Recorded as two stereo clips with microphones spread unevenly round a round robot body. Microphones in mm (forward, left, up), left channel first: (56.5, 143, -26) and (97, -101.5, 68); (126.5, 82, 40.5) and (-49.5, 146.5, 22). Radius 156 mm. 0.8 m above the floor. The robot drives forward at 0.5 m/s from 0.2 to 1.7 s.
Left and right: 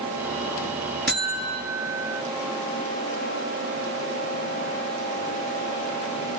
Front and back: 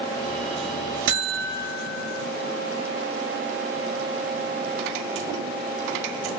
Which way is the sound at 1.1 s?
165° right.